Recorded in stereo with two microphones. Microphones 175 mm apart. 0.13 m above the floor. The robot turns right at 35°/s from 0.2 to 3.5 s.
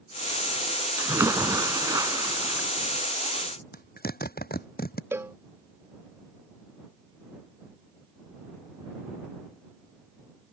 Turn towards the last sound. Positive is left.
turn(degrees=-15)  # may be behind; listen again after turning